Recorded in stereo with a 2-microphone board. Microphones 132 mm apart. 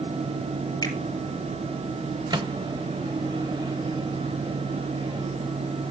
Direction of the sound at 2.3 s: 35° right (ahead or behind).